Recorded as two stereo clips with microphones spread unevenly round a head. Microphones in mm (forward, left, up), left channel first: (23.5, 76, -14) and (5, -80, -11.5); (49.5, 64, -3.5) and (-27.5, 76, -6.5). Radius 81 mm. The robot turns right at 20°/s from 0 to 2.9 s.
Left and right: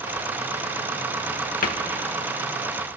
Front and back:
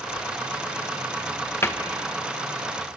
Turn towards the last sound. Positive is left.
turn(degrees=75)